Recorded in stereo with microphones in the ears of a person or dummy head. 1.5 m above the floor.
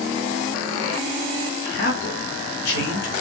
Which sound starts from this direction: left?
A man speaking, at 1.6 s.